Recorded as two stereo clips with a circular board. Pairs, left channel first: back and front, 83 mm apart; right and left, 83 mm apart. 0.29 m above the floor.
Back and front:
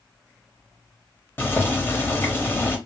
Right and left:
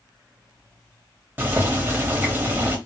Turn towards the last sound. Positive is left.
turn(degrees=135)